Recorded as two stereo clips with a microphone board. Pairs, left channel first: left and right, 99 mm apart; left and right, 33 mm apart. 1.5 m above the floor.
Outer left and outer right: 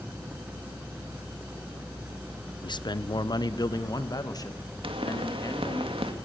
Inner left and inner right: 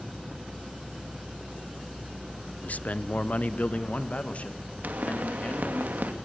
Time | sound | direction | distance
2.6 | a man speaking | 50° left (ahead or behind) | 0.6 m
4.8 | a pop | 65° right (ahead or behind) | 2 m